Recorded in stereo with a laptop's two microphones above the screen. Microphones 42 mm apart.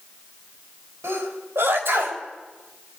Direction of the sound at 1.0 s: 65° right (ahead or behind).